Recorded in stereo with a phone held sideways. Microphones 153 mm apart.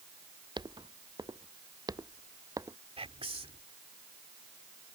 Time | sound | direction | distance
0.6 | footsteps | 30° right (ahead or behind) | ?
3.0 | whispering | 40° right (ahead or behind) | ?